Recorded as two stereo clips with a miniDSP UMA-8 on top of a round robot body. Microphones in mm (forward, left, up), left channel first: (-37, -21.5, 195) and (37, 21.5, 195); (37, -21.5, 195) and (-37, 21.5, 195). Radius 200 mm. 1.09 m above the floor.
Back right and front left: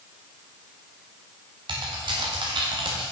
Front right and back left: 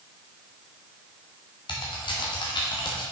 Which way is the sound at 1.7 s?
Straight ahead.